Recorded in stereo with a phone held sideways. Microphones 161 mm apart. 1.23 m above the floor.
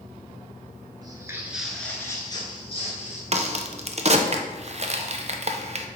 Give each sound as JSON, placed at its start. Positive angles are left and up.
{"t": 1.0, "sound": "footsteps", "side_deg": -30, "distance_m": 1.3}
{"t": 3.3, "sound": "a crack", "side_deg": -45, "distance_m": 0.5}